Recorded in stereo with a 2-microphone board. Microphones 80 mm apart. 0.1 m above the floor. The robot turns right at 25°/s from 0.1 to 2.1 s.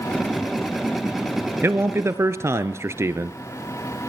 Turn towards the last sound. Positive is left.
turn(degrees=-35)  # may be behind; listen again after turning